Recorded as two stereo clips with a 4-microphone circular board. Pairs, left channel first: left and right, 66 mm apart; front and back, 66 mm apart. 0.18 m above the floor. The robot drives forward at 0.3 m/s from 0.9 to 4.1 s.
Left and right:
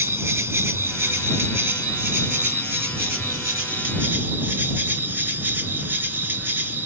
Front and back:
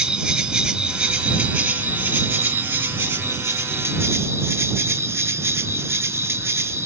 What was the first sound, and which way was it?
An insect, 120° right.